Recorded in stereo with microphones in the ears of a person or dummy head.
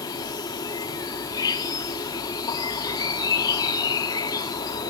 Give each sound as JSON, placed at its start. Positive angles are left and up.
{"t": 0.0, "sound": "an insect", "side_deg": 15, "distance_m": 1.0}